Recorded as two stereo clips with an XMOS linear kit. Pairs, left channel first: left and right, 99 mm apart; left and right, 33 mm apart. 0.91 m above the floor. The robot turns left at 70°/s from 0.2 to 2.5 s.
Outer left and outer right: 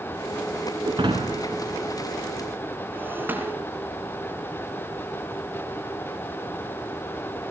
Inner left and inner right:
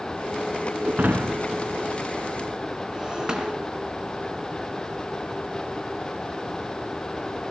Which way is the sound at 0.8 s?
45° right (ahead or behind).